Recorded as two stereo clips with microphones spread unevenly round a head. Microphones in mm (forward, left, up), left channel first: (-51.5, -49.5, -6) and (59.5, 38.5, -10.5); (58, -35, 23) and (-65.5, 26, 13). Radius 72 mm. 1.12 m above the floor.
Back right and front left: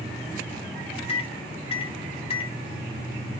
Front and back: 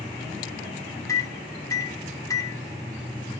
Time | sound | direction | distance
1.1 | a microwave | 95° right | 0.8 m